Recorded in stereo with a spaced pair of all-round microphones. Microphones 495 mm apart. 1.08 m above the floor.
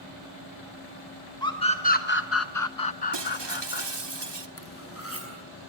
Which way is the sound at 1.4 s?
10° left (ahead or behind).